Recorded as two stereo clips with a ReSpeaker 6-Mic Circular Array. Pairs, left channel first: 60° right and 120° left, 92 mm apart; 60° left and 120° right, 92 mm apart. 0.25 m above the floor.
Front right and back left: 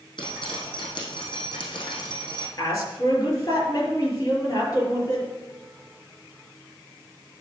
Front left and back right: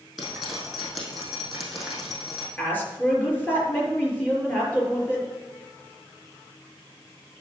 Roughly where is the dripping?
Ahead right.